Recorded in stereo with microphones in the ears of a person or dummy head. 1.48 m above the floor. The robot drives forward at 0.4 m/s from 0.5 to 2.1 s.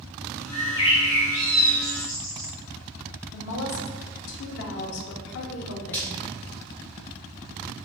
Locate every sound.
0.5 s a bird: 15° left (ahead or behind), 0.7 m
3.3 s a woman speaking: 70° left (ahead or behind), 0.7 m
5.9 s frying: 5° left (ahead or behind), 0.9 m